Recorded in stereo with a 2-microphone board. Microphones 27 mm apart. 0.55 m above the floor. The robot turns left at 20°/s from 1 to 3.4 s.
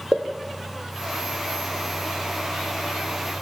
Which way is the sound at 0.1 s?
50° right (ahead or behind).